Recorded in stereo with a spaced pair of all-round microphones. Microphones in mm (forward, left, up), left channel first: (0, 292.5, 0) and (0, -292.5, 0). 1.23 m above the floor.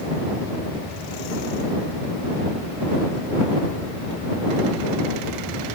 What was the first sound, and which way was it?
Only background noise.